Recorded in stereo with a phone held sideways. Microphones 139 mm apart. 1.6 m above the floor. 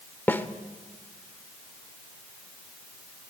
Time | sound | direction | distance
0.3 | a snare drum | 15° left (ahead or behind) | 1.3 m